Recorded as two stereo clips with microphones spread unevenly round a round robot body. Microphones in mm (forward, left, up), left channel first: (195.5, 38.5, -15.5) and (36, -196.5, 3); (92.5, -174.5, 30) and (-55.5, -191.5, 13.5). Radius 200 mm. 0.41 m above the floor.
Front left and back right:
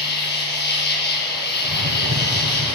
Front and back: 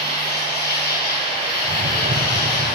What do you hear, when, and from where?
0.0 s an insect: 5° left, 8.5 m
1.6 s a whoosh: 175° right, 1.8 m